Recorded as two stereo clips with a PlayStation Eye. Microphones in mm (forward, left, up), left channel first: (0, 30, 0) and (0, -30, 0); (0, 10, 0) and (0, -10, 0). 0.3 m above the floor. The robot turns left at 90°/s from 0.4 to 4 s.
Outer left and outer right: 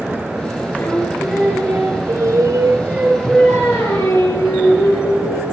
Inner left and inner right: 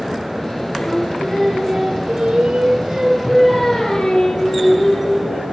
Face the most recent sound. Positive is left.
turn(degrees=110)